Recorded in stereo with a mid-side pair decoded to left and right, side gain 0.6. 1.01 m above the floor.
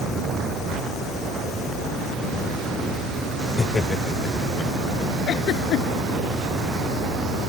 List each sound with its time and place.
3.6 s laughter: 25° left; by 5.1 s 40° left
5.3 s a giggle: 55° left